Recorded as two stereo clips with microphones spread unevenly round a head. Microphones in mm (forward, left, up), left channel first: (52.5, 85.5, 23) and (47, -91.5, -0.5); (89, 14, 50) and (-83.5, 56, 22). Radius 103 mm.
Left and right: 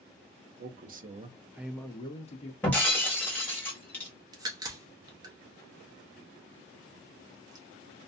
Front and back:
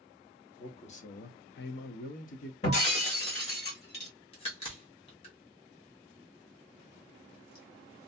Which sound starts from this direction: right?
A man speaking, at 0.6 s.